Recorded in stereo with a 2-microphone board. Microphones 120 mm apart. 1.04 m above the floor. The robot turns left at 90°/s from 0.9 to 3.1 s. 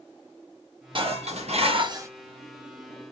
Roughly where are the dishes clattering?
Ahead right.